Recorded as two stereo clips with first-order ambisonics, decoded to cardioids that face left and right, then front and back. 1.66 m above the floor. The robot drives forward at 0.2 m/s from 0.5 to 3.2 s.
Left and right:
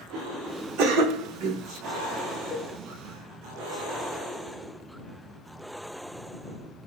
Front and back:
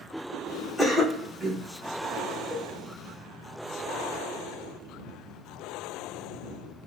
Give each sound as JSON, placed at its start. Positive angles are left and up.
{"t": 0.8, "sound": "a cough", "azimuth_deg": -90, "distance_m": 1.0}
{"t": 2.5, "sound": "a cowbell", "azimuth_deg": -140, "distance_m": 1.6}